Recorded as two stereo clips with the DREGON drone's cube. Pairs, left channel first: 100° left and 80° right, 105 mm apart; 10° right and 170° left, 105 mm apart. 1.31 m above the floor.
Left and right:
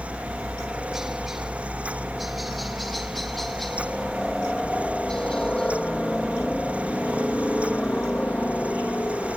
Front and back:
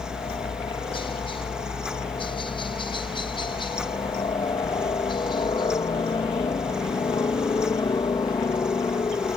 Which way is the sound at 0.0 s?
5° left.